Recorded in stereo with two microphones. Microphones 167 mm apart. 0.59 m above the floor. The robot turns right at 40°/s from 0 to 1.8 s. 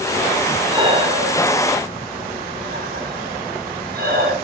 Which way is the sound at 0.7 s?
25° right (ahead or behind).